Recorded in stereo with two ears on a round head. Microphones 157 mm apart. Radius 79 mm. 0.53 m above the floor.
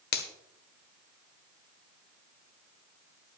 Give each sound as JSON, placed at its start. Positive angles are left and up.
{"t": 0.1, "sound": "a finger snap", "side_deg": 65, "distance_m": 1.5}